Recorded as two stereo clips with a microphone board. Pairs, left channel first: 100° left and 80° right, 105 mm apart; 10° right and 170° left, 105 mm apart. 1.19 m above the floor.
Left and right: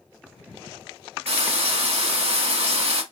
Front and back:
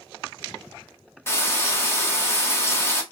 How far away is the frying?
About 0.9 m.